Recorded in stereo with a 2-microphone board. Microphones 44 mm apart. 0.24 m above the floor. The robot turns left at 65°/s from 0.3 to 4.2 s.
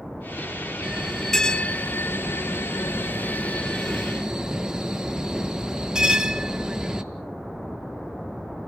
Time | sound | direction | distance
0.8 | a bell | 155° right | 1.0 m